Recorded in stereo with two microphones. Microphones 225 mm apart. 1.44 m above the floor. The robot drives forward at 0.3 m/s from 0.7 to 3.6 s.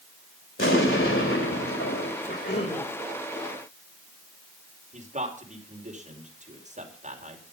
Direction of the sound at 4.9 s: 35° right (ahead or behind).